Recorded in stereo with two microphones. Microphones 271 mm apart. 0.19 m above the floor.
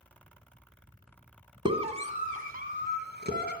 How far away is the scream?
About 1.9 m.